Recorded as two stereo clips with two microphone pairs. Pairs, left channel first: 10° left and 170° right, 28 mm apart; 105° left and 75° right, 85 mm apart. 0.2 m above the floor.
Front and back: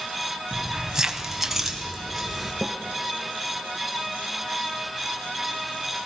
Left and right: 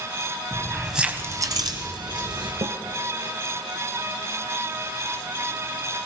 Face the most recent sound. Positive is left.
turn(degrees=-70)